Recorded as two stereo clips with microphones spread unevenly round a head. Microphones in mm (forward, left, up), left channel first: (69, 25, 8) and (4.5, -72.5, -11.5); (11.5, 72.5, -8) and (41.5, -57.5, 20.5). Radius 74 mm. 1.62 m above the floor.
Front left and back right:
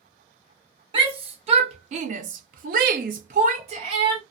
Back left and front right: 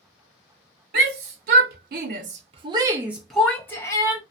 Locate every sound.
0.9 s a shout: 75° right, 1.1 m; by 4.2 s 170° left, 1.0 m